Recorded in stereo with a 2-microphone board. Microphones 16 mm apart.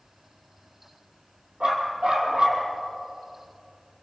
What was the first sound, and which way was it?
A dog barking, 75° right (ahead or behind).